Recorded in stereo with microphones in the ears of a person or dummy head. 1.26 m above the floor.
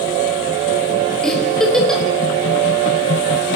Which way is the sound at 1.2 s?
5° left (ahead or behind).